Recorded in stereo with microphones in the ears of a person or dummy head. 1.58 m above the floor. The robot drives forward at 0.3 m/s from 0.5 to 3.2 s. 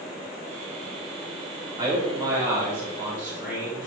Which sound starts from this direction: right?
A man speaking, at 1.8 s.